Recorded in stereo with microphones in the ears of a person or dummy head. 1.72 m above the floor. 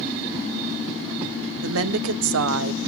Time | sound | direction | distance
1.6 | a woman speaking | 70° right (ahead or behind) | 1.1 m